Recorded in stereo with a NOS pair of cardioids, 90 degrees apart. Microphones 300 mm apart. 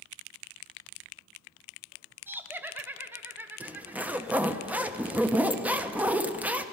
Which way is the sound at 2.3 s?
5° right.